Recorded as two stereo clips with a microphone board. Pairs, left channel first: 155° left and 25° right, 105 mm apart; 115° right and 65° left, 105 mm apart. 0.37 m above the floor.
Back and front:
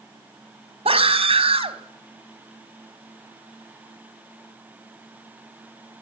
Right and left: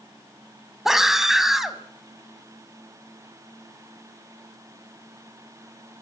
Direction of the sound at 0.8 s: 20° right.